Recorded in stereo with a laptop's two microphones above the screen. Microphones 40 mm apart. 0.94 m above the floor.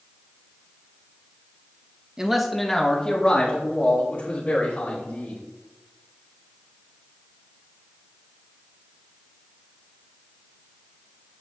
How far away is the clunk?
No clunk in this recording.